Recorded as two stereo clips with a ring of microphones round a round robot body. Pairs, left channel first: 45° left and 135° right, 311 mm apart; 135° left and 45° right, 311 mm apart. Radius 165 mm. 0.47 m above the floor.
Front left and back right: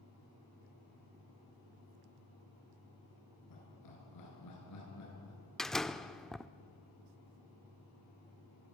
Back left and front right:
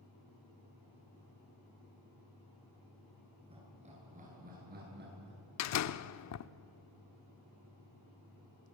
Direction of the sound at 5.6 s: 135° left.